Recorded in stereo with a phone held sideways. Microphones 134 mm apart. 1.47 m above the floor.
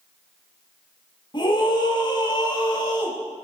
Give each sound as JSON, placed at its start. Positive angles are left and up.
{"t": 1.3, "sound": "a scream", "side_deg": 35, "distance_m": 7.0}